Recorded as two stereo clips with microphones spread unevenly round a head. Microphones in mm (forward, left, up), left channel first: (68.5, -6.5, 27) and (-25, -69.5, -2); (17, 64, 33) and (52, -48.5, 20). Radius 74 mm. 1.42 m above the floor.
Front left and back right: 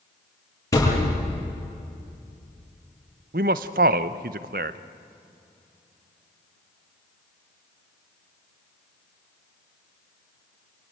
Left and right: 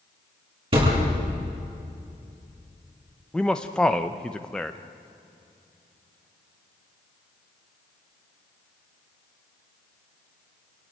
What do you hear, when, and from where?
0.7 s a thud: 25° right, 9.5 m
3.3 s a man speaking: 170° right, 0.8 m